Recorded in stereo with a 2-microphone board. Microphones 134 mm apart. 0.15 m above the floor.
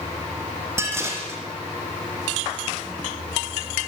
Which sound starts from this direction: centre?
Dishes clattering, at 0.8 s.